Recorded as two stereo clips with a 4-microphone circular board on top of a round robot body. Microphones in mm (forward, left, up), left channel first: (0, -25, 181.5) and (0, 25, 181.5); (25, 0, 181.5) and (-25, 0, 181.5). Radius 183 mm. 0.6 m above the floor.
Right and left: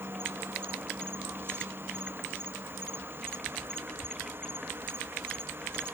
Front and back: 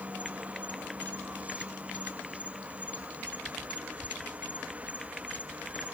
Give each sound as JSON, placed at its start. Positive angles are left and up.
{"t": 0.0, "sound": "an insect", "azimuth_deg": 120, "distance_m": 1.0}